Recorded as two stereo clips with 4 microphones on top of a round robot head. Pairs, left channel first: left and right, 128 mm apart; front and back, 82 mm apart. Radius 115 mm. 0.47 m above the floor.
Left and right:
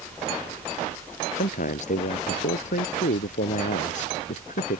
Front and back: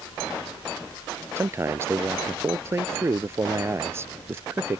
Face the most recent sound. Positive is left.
turn(degrees=120)